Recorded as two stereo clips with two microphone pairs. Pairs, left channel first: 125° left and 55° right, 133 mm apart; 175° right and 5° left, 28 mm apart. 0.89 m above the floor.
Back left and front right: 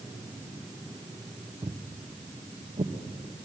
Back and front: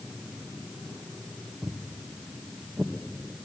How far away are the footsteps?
About 1.9 m.